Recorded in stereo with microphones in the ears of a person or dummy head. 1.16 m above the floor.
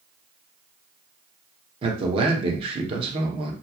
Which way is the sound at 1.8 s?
35° right (ahead or behind).